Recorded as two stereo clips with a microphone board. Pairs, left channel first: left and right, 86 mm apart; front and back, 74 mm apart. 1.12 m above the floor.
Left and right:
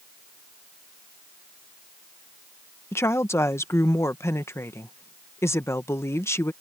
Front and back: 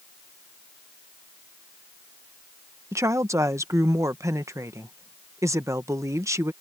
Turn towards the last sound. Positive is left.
turn(degrees=145)